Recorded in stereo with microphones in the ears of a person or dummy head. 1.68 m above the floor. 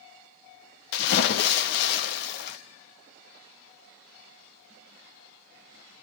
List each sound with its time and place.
0.9 s a splash: 60° left (ahead or behind), 0.7 m